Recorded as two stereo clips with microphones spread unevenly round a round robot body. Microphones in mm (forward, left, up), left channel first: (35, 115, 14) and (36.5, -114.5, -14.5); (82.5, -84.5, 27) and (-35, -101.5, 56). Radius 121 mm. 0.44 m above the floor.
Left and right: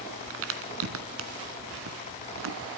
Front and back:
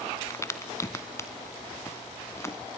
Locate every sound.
0.3 s a crack: 60° right, 1.5 m